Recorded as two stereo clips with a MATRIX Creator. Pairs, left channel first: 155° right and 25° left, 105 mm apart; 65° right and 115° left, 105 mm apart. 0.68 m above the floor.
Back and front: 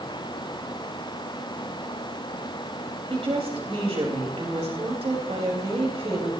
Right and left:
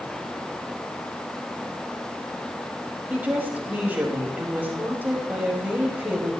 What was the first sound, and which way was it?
A woman speaking, 40° left.